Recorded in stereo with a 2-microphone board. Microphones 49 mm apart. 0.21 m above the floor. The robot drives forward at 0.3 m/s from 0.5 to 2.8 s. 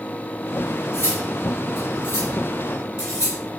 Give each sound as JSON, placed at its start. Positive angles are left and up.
{"t": 0.9, "sound": "cutlery clinking", "side_deg": 50, "distance_m": 1.6}